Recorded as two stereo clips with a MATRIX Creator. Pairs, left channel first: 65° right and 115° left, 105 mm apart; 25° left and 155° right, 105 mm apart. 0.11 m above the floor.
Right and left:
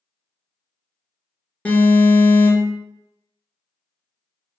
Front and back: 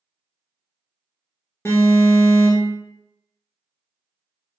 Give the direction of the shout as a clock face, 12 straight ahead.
I don't hear a shout.